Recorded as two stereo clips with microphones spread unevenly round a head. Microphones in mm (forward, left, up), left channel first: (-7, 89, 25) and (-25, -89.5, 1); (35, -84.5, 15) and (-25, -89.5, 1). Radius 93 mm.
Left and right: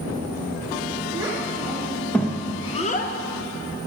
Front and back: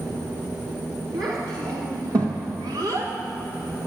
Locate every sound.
1.1 s a child speaking: 170° right, 2 m; by 3.9 s 85° left, 1.2 m